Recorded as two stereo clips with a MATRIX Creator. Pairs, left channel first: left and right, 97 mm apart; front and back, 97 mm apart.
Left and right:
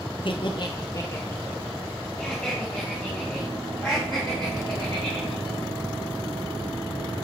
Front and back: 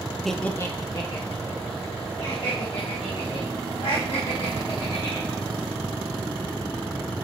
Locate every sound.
0.2 s laughter: 90° left, 0.7 m; by 5.5 s straight ahead, 4 m